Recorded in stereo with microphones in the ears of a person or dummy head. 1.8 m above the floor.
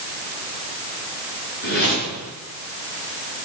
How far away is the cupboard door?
I don't hear a cupboard door.